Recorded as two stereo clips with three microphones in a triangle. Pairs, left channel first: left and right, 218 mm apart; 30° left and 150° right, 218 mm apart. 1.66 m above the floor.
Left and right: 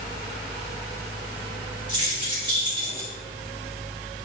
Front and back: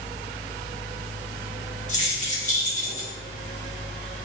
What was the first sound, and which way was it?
Keys jangling, 25° right.